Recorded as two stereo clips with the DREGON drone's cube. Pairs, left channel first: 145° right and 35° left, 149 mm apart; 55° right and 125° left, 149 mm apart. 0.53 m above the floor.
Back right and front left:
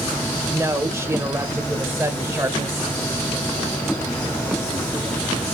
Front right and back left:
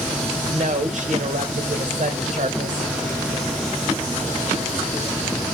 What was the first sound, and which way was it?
A woman speaking, 105° left.